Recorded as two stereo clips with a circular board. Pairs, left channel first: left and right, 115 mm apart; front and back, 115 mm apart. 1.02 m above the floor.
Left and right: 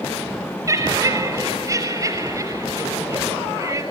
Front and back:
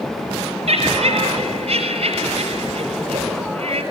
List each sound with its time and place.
0.7 s laughter: 150° right, 6 m